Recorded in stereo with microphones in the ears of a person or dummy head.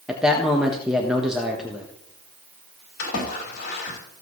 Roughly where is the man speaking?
Centre.